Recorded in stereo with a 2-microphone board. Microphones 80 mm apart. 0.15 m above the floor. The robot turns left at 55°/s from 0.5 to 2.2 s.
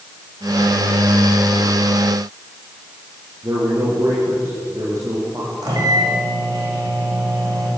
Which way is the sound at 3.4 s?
40° right (ahead or behind).